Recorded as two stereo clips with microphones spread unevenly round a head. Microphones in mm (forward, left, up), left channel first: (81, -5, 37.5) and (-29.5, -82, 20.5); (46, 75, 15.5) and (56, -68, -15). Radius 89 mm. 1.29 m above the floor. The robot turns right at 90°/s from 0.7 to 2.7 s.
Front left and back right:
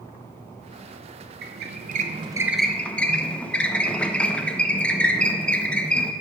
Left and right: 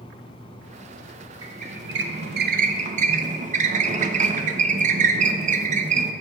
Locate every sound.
1.4 s a squeak: 160° right, 0.6 m; by 6.1 s 45° right, 0.6 m